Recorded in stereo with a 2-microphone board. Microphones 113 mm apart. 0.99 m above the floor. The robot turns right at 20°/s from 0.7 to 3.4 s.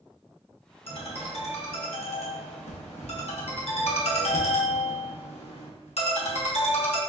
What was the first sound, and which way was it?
A ringtone, 60° left.